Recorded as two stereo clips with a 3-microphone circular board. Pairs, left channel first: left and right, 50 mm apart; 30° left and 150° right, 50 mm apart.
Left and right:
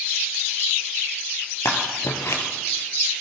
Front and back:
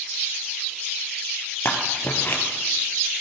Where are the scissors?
75° left, 2.5 m.